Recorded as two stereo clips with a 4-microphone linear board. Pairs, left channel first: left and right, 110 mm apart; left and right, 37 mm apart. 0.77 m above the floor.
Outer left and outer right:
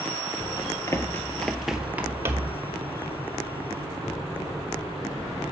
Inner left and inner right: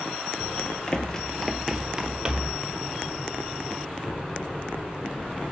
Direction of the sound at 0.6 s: 35° left (ahead or behind).